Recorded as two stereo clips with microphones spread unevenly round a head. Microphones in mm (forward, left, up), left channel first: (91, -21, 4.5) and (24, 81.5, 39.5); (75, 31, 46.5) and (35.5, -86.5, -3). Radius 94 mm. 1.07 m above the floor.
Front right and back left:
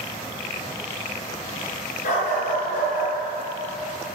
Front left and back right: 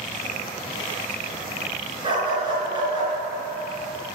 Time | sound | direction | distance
2.0 | a dog barking | 55° right | 4.5 m